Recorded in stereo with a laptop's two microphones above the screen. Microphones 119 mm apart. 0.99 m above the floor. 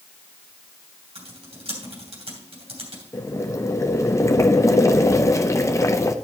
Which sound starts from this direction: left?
Boiling, at 3.1 s.